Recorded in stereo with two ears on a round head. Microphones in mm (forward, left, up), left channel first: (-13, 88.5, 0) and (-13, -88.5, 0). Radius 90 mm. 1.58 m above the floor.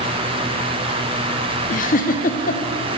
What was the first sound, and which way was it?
A giggle, 45° left (ahead or behind).